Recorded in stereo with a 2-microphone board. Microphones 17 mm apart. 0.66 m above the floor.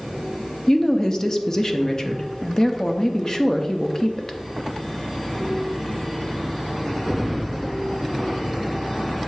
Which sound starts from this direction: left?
A woman speaking, at 0.7 s.